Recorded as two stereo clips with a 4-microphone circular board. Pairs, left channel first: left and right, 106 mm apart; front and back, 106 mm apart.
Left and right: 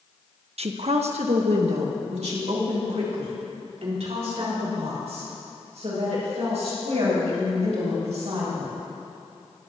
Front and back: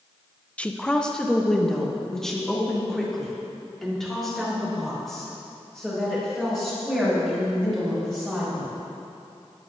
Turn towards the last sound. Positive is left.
turn(degrees=-90)